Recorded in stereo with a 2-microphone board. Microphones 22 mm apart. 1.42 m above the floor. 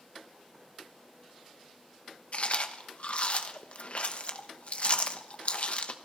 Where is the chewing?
55° left (ahead or behind), 0.8 m.